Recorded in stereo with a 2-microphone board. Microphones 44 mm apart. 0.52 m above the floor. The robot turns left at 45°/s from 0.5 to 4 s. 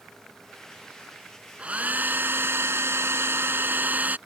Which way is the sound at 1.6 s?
30° right.